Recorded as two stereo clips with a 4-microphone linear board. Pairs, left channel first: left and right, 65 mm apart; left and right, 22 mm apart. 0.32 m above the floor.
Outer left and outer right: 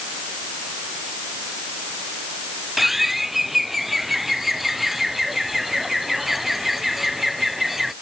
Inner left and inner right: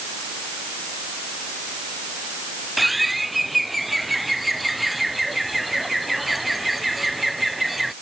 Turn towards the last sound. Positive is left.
turn(degrees=-5)  # may be behind; listen again after turning